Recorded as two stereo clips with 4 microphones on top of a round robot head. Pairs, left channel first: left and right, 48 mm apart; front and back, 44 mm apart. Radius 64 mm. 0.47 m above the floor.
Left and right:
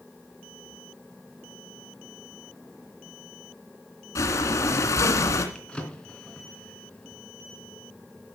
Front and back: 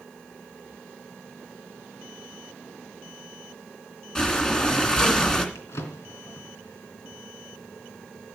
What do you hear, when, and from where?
4.2 s breathing: 75° left, 2.5 m
5.5 s a drawer: 15° left, 3 m